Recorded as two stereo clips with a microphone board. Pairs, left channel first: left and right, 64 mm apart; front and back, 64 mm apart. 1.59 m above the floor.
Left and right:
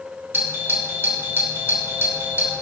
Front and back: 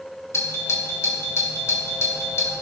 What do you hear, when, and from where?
0.3 s a doorbell: 40° right, 1.9 m